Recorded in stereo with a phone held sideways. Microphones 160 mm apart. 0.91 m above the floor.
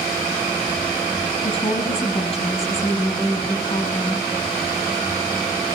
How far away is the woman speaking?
About 6.5 m.